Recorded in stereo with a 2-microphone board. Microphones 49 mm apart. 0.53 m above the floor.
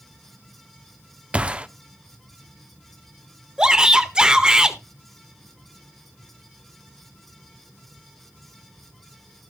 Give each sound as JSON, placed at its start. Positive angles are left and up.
{"t": 1.3, "sound": "a gunshot", "side_deg": -25, "distance_m": 0.7}
{"t": 3.6, "sound": "a shout", "side_deg": -15, "distance_m": 1.5}